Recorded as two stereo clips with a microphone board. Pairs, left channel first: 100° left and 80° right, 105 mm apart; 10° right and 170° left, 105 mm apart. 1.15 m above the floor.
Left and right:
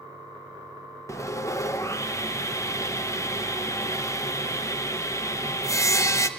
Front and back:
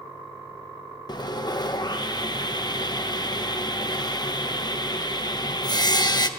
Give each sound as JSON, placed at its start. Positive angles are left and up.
{"t": 1.1, "sound": "sawing", "azimuth_deg": 35, "distance_m": 0.7}